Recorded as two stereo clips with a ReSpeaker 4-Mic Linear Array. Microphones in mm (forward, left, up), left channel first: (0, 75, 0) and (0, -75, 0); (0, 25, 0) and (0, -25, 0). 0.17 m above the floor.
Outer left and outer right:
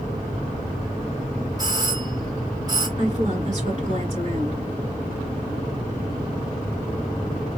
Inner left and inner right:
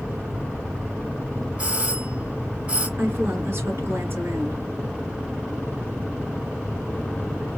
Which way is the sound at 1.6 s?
25° right (ahead or behind).